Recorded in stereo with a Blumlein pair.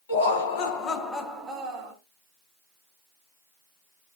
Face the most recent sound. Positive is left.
turn(degrees=-35)